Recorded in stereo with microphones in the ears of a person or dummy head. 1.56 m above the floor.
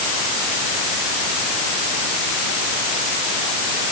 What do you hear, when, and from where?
Only background noise.